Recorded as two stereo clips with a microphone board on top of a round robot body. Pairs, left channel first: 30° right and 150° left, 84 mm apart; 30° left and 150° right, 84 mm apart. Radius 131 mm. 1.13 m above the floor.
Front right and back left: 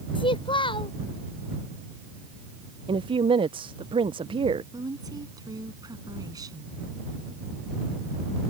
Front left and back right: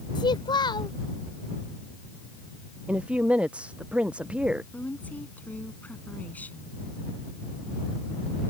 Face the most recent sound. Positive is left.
turn(degrees=105)